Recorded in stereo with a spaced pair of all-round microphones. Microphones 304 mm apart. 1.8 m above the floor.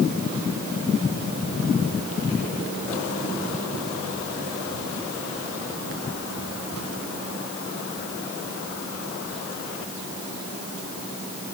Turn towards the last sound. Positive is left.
No sound to turn to.